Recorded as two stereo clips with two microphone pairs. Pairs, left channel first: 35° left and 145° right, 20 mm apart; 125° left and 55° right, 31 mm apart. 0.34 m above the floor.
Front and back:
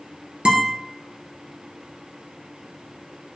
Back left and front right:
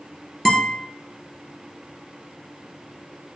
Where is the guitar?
155° right, 2 m.